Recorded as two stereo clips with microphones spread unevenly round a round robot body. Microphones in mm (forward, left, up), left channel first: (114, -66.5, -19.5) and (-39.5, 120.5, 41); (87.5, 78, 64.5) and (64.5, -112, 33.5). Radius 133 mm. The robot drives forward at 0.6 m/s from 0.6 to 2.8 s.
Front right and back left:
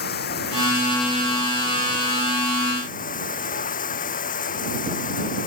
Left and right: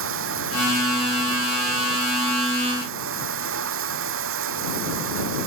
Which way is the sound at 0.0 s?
105° right.